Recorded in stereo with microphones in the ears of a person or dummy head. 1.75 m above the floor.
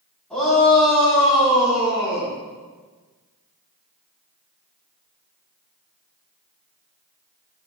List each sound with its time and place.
0.3 s a shout: 5° left (ahead or behind), 5 m; by 2.3 s 10° right (ahead or behind), 6 m